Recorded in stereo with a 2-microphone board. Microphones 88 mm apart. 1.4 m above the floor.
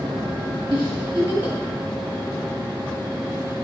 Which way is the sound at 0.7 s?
90° right.